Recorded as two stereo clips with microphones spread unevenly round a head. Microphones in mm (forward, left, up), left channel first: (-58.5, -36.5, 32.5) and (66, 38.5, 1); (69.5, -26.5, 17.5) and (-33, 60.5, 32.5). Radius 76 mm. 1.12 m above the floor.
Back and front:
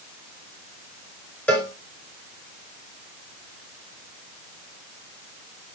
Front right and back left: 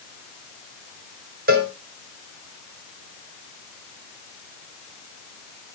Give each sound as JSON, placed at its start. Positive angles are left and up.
{"t": 1.5, "sound": "a cowbell", "azimuth_deg": 130, "distance_m": 3.0}